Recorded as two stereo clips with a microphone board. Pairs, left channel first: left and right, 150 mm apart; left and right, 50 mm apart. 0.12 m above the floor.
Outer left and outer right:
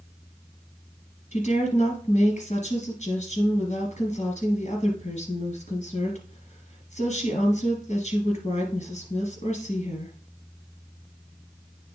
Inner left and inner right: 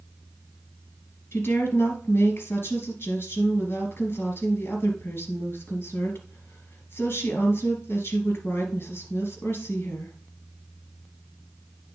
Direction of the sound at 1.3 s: 50° left (ahead or behind).